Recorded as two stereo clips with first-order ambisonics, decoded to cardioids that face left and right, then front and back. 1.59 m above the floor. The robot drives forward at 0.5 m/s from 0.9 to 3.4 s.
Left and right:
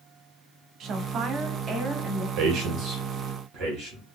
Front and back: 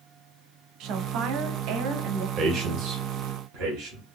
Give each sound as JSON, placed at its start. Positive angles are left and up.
{"t": 0.8, "sound": "a woman speaking", "azimuth_deg": -140, "distance_m": 0.6}
{"t": 2.4, "sound": "a man speaking", "azimuth_deg": -125, "distance_m": 0.6}